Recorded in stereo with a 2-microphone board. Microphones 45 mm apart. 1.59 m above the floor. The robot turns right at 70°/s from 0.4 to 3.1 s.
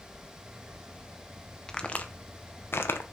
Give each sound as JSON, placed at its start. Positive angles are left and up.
{"t": 1.7, "sound": "a crack", "side_deg": 15, "distance_m": 0.8}